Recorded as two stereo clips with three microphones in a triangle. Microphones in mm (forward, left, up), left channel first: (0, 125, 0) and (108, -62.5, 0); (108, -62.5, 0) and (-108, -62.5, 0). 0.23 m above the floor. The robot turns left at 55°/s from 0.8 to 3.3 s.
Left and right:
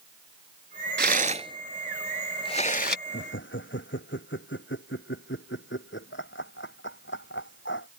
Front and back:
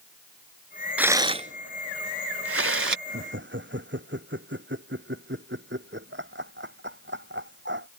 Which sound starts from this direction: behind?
Laughter, at 3.1 s.